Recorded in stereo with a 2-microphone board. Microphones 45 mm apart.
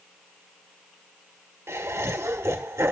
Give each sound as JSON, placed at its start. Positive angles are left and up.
{"t": 1.7, "sound": "laughter", "side_deg": -85, "distance_m": 1.4}